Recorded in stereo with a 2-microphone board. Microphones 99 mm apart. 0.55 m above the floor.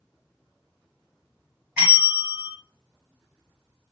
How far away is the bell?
About 1.2 m.